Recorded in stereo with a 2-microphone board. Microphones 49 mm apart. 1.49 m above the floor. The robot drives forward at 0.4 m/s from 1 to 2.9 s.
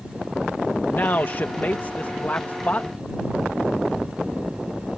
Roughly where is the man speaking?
Left.